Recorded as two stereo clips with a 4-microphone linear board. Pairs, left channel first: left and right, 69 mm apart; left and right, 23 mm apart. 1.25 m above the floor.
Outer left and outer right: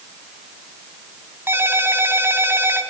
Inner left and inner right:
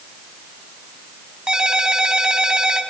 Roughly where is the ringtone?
Right.